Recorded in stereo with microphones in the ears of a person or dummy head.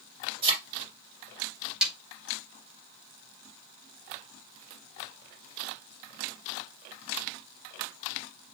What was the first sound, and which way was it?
A thud, 30° right (ahead or behind).